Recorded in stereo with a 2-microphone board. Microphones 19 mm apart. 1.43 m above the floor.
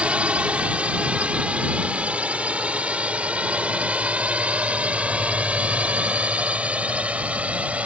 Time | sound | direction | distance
0.0 | a drone | 70° right (ahead or behind) | ?